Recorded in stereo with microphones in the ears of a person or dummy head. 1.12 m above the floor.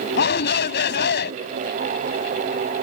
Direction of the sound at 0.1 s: 65° left (ahead or behind).